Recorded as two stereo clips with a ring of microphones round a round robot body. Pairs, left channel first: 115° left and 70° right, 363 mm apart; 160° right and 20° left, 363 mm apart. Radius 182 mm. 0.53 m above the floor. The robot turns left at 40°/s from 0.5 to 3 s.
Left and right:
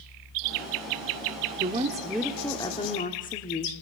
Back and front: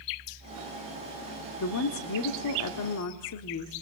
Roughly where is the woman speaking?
Behind right.